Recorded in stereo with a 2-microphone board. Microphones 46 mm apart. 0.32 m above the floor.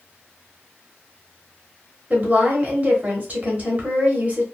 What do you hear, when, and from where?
2.1 s a woman speaking: 40° right (ahead or behind), 1.0 m